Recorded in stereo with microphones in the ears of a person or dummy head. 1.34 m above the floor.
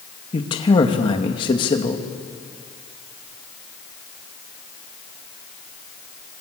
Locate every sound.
0.3 s a man speaking: 20° left (ahead or behind), 2.5 m